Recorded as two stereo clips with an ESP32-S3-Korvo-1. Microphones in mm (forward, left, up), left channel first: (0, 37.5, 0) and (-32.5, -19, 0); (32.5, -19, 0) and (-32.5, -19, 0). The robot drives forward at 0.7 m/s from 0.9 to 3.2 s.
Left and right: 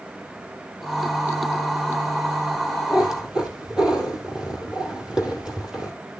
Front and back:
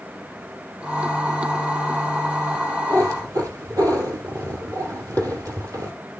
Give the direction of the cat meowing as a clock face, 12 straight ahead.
7 o'clock.